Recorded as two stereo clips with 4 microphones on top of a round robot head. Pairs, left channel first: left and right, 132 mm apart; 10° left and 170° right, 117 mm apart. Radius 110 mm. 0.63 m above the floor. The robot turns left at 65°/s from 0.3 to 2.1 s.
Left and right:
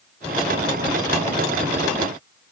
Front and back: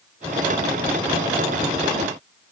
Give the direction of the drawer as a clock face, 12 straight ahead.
I don't hear a drawer.